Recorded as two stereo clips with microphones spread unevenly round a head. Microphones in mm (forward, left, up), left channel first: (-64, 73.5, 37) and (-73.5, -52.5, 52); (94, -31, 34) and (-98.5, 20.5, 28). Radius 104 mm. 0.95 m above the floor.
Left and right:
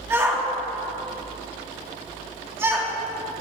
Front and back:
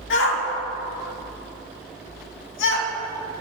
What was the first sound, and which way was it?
A shout, 20° right.